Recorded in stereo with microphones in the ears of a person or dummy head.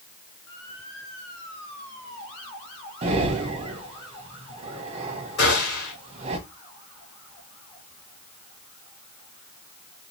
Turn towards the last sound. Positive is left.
turn(degrees=70)  # may be behind; listen again after turning